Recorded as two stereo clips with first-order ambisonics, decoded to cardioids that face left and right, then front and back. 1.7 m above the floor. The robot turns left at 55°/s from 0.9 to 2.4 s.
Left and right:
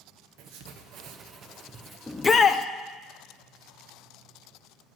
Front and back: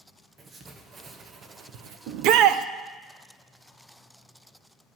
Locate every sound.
0.4 s writing: 110° right, 1.0 m; by 2.0 s 170° right, 1.0 m
2.1 s a shout: 175° left, 0.6 m; by 2.6 s 155° left, 0.6 m